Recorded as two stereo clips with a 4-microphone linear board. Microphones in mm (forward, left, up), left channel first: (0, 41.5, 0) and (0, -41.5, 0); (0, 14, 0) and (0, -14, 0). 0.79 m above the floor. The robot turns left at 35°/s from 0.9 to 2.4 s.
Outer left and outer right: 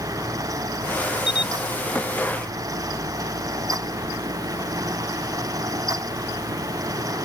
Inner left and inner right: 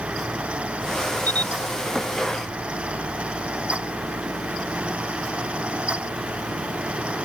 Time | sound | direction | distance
1.3 | a camera shutter | 85° left | ?